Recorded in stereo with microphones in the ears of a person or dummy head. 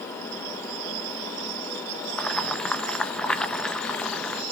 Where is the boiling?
Centre (ahead or behind), 0.7 m.